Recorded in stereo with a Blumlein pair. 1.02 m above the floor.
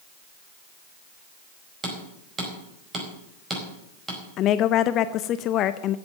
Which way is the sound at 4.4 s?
35° left.